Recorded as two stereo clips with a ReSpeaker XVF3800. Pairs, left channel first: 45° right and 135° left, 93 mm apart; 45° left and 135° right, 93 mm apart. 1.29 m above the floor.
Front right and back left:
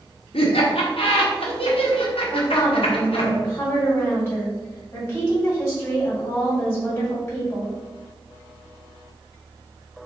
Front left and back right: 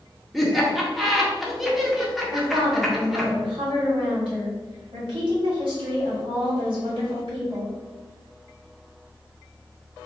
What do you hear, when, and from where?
0.3 s laughter: 45° right, 1.0 m
2.3 s a woman speaking: 115° right, 1.8 m